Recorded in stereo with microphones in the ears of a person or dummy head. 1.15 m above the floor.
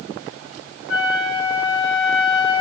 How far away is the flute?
About 7.5 m.